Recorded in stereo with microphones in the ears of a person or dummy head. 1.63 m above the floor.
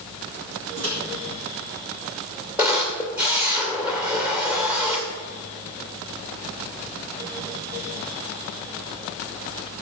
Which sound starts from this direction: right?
A microwave, at 0.8 s.